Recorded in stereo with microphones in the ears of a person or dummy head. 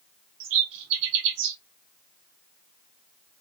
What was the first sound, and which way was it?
A bird, 55° right (ahead or behind).